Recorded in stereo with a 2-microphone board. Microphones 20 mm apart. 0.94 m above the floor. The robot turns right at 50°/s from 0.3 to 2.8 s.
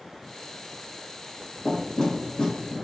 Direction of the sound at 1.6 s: 35° left (ahead or behind).